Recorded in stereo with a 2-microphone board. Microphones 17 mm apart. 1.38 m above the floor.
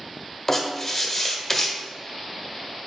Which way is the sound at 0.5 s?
15° left (ahead or behind).